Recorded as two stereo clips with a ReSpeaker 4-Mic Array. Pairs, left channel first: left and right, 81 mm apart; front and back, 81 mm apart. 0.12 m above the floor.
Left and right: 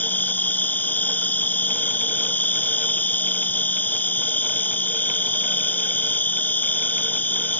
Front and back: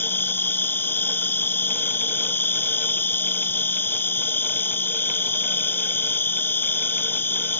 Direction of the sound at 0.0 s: 40° left.